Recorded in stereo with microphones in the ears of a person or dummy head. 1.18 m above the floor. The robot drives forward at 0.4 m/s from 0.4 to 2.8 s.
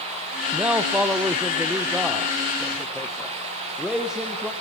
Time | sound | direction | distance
0.5 | a man speaking | 5° right (ahead or behind) | 0.6 m